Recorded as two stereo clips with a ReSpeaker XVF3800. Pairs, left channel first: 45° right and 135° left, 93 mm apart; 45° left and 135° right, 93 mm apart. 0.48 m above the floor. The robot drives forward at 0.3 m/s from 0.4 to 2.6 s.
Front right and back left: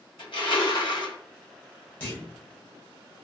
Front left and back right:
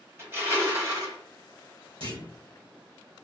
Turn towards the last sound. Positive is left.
turn(degrees=-120)